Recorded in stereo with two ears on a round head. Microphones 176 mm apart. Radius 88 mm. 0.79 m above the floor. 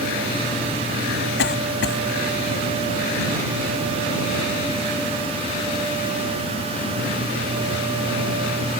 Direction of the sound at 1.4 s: 65° left (ahead or behind).